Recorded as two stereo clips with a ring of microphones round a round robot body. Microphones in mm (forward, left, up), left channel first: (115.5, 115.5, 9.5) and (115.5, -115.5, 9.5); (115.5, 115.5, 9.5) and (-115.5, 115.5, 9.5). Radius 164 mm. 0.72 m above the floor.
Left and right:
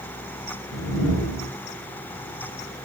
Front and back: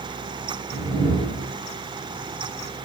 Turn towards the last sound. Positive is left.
turn(degrees=75)